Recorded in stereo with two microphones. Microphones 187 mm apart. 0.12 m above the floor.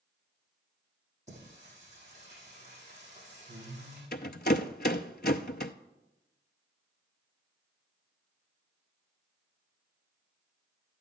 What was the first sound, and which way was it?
Singing, 40° right (ahead or behind).